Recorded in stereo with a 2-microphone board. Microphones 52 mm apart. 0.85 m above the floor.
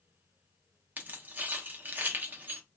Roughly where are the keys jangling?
Right.